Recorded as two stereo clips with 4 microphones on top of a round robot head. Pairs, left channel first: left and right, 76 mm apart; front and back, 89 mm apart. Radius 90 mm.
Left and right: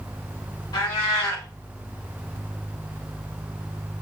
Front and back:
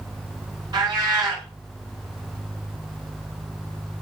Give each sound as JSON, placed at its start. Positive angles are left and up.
{"t": 0.7, "sound": "a cat meowing", "azimuth_deg": 140, "distance_m": 4.5}